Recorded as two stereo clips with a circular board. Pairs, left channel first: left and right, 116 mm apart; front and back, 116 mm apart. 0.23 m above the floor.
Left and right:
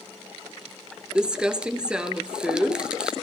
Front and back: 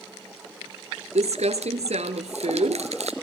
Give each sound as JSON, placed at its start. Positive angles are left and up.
{"t": 1.1, "sound": "crumpling", "azimuth_deg": -175, "distance_m": 1.6}